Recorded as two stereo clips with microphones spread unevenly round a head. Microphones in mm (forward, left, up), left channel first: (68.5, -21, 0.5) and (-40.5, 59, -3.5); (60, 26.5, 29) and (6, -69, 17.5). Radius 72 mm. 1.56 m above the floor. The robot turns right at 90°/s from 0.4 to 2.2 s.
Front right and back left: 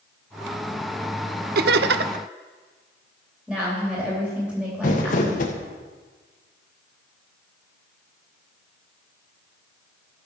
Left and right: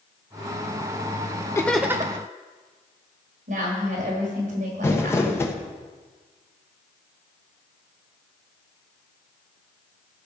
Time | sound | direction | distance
1.6 | laughter | 130° left | 0.6 m
3.5 | a woman speaking | 130° right | 4 m
4.8 | crumpling | 5° right | 1.3 m